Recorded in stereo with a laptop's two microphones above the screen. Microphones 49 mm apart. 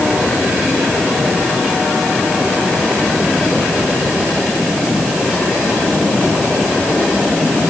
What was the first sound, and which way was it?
Only background noise.